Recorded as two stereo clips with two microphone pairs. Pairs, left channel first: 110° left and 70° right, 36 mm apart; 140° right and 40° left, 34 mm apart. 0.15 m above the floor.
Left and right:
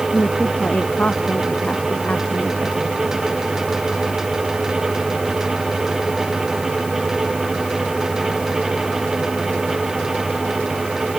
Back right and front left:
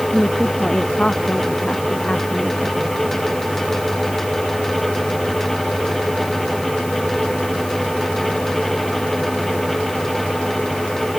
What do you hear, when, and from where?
0.1 s a woman speaking: 160° left